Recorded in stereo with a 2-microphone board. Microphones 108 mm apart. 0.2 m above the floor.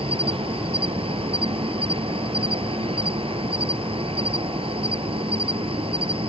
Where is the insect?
60° right (ahead or behind).